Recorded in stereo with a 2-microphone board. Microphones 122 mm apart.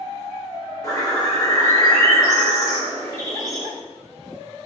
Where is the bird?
30° left (ahead or behind), 0.9 m.